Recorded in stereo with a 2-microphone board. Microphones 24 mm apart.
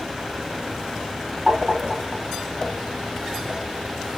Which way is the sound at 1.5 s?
65° right (ahead or behind).